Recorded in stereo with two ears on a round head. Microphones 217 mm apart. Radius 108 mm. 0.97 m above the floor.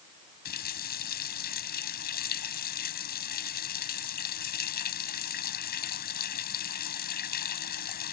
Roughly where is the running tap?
Left.